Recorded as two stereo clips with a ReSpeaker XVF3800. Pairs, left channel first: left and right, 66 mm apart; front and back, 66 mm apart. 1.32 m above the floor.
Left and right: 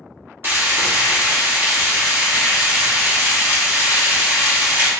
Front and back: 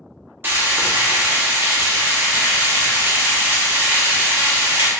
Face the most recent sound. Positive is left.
turn(degrees=-135)